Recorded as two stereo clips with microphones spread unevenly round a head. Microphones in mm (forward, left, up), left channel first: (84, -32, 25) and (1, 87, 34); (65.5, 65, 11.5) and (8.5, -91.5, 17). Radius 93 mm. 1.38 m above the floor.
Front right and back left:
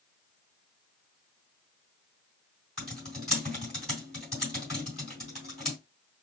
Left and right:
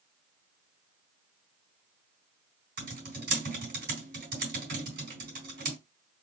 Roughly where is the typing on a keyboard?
Behind right.